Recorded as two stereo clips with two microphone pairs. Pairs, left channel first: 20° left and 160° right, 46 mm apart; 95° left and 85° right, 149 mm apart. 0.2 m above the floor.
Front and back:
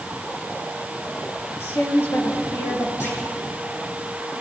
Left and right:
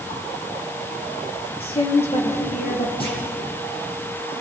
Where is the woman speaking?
45° left, 4 m; by 2.9 s 55° left, 5 m.